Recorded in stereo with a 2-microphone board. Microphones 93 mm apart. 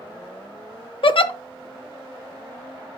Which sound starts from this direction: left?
A giggle, at 1.0 s.